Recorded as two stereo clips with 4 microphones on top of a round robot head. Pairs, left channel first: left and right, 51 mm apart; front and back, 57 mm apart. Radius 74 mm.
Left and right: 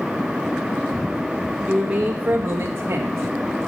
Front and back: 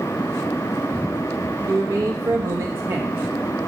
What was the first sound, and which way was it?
A man speaking, 170° right.